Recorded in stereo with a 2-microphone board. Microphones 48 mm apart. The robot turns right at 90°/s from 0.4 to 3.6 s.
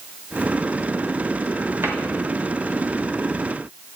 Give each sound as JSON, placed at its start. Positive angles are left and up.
{"t": 1.8, "sound": "a cupboard door", "side_deg": -55, "distance_m": 1.2}